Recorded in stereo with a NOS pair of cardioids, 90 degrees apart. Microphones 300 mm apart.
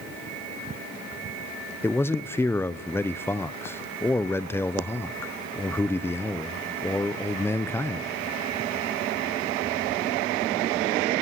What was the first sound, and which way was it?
A man speaking, 10° left.